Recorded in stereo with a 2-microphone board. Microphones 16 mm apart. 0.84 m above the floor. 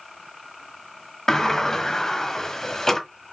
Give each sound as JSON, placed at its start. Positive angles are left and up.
{"t": 1.3, "sound": "a sliding door", "side_deg": 35, "distance_m": 1.3}